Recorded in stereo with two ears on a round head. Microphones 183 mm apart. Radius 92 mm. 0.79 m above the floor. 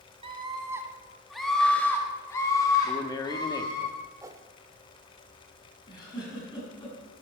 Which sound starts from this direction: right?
A scream, at 0.2 s.